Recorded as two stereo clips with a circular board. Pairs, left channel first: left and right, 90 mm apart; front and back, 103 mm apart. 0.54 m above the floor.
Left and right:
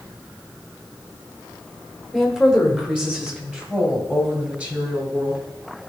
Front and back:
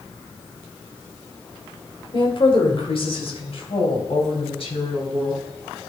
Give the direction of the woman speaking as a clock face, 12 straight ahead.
12 o'clock.